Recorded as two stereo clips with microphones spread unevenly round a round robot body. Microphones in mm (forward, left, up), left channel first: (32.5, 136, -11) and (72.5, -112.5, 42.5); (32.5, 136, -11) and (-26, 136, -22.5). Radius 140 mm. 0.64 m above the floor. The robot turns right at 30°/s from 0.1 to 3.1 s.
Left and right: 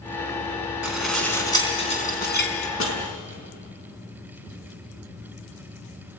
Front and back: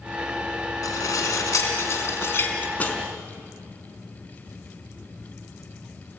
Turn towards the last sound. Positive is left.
turn(degrees=70)